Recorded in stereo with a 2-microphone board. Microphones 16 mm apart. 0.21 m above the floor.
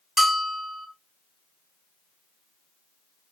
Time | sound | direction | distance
0.2 | a bell | 20° right (ahead or behind) | 1.0 m